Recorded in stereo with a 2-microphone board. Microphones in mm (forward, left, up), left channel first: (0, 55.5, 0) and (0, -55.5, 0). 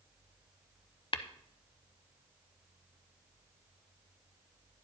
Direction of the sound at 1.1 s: 50° left (ahead or behind).